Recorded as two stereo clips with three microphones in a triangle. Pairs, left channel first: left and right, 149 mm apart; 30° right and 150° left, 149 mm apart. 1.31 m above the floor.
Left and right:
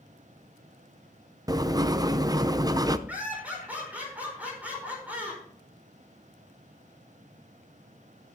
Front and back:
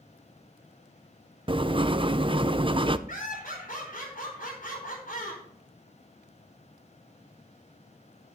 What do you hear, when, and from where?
1.5 s writing: 155° right, 0.5 m
3.1 s laughter: 10° right, 5 m